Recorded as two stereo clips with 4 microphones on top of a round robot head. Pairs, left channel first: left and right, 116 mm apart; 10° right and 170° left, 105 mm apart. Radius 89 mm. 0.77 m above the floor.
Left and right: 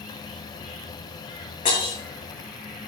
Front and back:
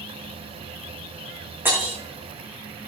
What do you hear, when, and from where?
1.6 s breaking glass: 100° left, 6 m